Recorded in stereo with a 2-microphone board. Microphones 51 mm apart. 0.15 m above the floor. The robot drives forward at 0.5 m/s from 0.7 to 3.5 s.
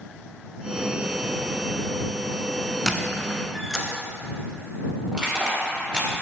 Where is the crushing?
20° right (ahead or behind), 2.0 m.